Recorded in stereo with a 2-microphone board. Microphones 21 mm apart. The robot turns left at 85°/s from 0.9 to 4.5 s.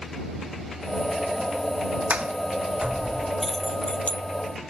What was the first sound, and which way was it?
A sliding door, 75° right (ahead or behind).